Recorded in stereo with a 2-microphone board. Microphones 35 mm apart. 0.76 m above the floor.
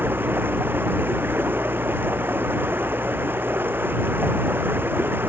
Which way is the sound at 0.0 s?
80° right.